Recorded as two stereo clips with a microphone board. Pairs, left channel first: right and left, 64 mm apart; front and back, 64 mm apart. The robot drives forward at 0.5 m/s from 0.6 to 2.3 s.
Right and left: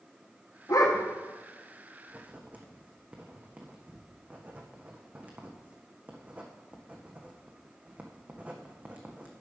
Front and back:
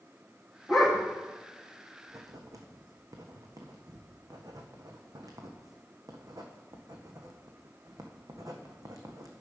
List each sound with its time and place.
0.7 s a dog barking: 95° right, 2.5 m; by 1.1 s 100° right, 2.5 m
2.1 s writing: 150° left, 1.5 m; by 9.3 s 155° left, 1.6 m